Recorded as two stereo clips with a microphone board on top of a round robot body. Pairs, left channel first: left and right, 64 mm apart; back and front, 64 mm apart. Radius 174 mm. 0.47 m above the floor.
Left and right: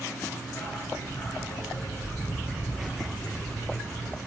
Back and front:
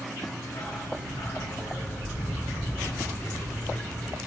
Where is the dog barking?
145° left, 2.5 m.